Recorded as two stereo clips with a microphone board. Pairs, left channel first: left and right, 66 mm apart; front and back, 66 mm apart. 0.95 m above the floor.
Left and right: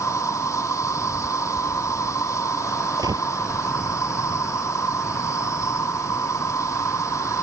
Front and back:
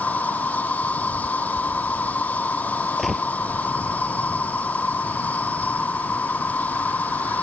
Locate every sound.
0.0 s an insect: 60° left
3.0 s a gunshot: 90° right